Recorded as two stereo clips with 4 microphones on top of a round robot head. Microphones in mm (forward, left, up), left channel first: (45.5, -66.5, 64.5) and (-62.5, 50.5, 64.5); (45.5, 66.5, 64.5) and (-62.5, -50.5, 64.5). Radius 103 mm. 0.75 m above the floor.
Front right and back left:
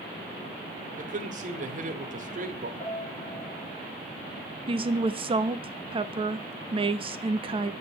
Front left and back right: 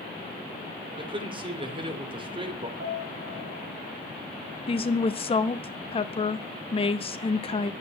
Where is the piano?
110° right, 7.5 m.